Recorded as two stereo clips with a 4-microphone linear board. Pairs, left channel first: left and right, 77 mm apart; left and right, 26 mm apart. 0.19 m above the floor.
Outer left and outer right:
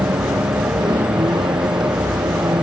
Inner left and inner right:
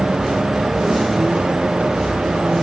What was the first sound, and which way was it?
A vehicle, 70° right (ahead or behind).